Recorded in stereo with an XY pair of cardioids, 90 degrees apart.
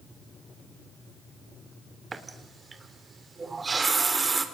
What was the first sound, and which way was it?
A running tap, 30° right.